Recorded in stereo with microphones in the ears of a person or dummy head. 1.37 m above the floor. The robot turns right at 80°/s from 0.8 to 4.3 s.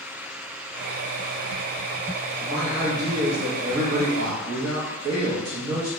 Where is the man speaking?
150° left, 0.8 m; by 5.9 s 55° right, 0.8 m.